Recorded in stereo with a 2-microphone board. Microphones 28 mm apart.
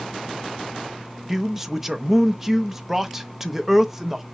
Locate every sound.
1.3 s a man speaking: 10° right (ahead or behind), 0.6 m